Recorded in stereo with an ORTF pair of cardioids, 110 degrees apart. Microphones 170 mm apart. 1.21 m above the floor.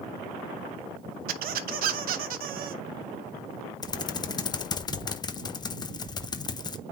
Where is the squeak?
60° right, 0.8 m.